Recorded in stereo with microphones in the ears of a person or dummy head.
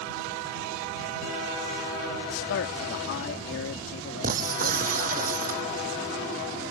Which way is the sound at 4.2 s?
40° right (ahead or behind).